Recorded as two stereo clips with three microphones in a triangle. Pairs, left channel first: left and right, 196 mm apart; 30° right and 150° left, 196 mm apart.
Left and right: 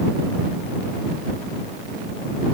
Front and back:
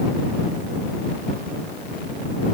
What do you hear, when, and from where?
Only background noise.